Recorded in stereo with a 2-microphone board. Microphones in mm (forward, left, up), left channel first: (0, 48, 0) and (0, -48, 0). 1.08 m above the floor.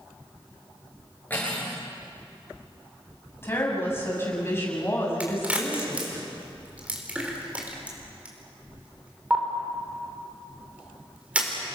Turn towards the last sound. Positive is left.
turn(degrees=-15)  # may be behind; listen again after turning